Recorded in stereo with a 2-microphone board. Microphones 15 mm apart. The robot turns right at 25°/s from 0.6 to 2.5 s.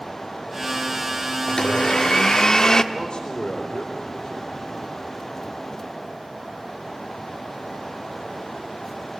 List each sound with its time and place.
1.5 s a blender: 70° left (ahead or behind), 1.2 m; by 2.8 s 45° left (ahead or behind), 1.2 m
2.9 s a man speaking: 50° left (ahead or behind), 4.5 m